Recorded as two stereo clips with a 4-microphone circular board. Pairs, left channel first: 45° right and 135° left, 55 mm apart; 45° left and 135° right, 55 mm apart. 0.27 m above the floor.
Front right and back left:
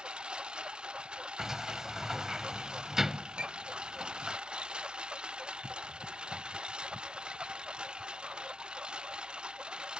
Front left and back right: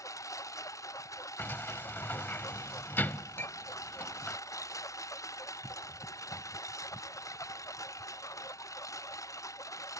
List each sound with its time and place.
0.0 s a lawn mower: 65° left
1.4 s a sliding door: 60° left
3.4 s a clink: 70° left